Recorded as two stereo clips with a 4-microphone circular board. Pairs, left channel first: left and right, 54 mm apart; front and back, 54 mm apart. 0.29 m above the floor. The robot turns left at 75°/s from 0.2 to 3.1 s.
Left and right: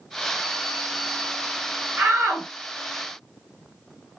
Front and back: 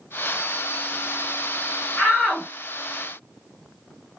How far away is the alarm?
I don't hear an alarm.